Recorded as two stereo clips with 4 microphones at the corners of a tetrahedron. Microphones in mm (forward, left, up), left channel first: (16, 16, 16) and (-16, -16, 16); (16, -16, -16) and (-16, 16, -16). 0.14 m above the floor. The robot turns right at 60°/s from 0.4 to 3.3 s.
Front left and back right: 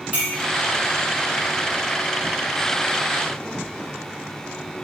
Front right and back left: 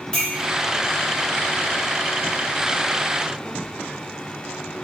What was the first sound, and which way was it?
A clink, 100° right.